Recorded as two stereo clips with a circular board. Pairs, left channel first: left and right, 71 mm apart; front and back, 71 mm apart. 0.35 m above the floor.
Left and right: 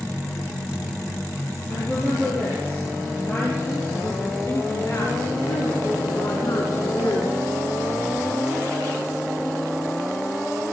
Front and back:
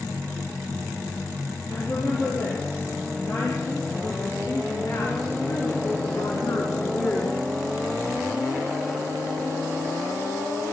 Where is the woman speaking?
30° left, 9.5 m; by 7.5 s 55° left, 4 m.